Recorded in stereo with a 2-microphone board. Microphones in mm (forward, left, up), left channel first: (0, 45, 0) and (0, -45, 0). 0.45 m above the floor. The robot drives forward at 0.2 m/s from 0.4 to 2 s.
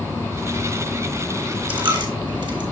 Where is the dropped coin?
70° right (ahead or behind), 1.4 m; by 2.6 s 65° right (ahead or behind), 1.5 m.